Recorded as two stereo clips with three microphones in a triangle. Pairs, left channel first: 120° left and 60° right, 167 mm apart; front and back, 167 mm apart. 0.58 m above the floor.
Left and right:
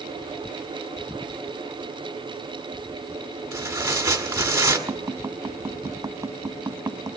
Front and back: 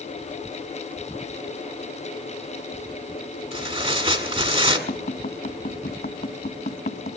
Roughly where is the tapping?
Ahead.